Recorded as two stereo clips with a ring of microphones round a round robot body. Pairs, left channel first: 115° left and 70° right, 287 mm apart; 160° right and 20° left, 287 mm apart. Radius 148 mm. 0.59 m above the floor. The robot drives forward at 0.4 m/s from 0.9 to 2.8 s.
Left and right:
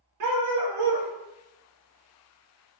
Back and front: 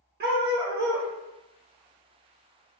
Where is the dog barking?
35° right, 0.6 m; by 1.1 s 40° right, 0.5 m.